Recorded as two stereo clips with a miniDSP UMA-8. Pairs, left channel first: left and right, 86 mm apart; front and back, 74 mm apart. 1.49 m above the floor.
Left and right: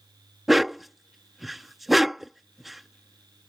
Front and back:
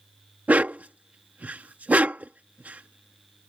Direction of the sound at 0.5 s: 175° right.